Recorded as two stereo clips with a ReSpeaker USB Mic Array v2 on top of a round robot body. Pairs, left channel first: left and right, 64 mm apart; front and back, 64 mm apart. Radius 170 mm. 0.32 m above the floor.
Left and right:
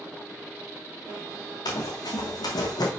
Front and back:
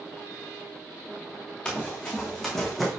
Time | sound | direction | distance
1.6 | running footsteps | 75° left | 1.8 m